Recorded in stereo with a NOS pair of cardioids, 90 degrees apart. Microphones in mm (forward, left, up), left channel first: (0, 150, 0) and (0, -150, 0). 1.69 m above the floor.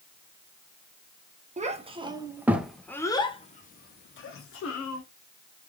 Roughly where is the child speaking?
Ahead right.